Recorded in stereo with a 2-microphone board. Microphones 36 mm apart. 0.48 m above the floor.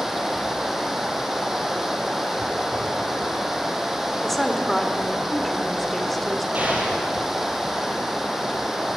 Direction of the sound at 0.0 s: 10° right (ahead or behind).